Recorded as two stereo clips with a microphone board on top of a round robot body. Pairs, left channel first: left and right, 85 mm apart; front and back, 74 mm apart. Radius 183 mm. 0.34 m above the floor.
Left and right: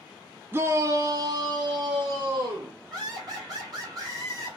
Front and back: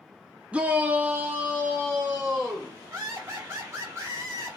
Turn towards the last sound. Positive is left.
turn(degrees=-130)